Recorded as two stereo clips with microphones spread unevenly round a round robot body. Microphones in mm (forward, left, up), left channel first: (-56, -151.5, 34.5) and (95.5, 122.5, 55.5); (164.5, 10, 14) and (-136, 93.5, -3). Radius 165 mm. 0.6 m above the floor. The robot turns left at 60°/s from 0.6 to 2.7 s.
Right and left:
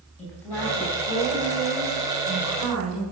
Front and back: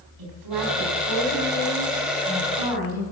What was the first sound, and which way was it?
A woman speaking, 155° left.